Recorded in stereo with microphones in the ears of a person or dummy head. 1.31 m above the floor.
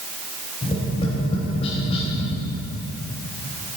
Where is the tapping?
30° left (ahead or behind), 3.5 m.